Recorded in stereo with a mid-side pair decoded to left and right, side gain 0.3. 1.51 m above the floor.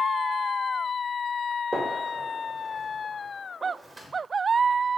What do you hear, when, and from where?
1.7 s a gunshot: 35° right, 1.9 m